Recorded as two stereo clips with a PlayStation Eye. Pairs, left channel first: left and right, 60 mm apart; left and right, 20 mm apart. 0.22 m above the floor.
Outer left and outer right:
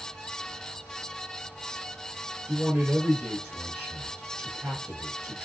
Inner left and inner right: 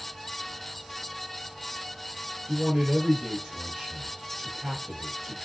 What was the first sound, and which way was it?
A man speaking, 15° right (ahead or behind).